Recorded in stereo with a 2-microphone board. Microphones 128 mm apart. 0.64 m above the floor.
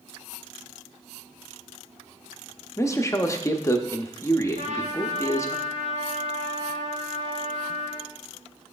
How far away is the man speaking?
About 0.7 m.